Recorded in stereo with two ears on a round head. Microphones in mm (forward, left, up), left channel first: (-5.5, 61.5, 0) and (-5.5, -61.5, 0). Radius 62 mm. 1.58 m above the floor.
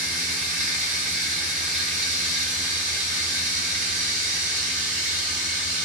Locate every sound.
0.0 s running water: 55° right (ahead or behind), 0.9 m